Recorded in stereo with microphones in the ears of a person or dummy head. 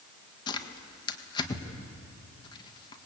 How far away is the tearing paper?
About 1.7 m.